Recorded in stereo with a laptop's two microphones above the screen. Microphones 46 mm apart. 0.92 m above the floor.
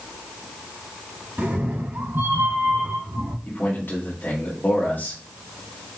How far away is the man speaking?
About 1.7 m.